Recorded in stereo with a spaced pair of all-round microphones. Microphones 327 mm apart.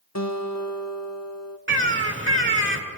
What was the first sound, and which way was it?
A guitar, 55° left (ahead or behind).